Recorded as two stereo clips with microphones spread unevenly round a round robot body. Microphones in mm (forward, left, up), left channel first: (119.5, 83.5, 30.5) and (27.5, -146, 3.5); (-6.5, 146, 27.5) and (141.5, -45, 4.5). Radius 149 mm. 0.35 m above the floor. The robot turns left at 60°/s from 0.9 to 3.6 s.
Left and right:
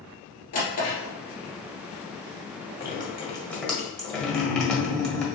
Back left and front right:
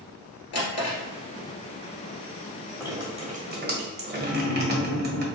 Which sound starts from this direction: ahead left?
Dripping, at 2.8 s.